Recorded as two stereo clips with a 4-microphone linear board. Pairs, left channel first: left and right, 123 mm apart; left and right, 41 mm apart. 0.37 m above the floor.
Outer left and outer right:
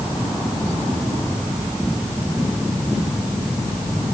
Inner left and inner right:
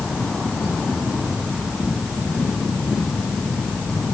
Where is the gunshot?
I don't hear a gunshot.